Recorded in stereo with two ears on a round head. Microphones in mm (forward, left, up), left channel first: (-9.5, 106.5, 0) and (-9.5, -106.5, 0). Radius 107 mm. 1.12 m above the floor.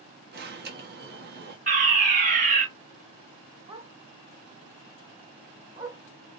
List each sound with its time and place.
0.3 s an alarm: 45° right (ahead or behind), 1.6 m
1.7 s a fire alarm: 35° right (ahead or behind), 1.6 m
3.7 s a dog barking: 15° right (ahead or behind), 1.5 m